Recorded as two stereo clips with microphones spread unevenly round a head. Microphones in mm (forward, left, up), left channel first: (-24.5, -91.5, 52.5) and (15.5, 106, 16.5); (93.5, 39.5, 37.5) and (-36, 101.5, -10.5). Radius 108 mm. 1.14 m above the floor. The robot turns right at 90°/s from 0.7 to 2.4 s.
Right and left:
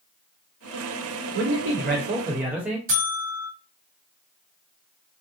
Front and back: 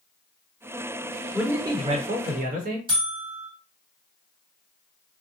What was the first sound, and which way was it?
A man speaking, 65° left.